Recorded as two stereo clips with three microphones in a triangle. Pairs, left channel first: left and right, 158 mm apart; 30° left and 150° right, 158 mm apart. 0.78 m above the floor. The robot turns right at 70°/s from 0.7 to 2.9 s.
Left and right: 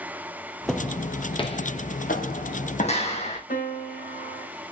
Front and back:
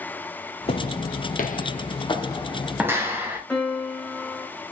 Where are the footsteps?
Straight ahead, 1.1 m; by 3.4 s 135° left, 2.5 m.